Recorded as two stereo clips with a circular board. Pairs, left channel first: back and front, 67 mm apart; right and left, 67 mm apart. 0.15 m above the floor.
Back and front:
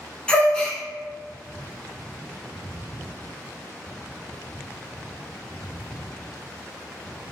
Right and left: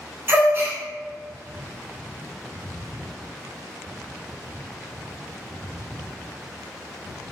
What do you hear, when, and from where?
0.3 s a gasp: 110° left, 0.7 m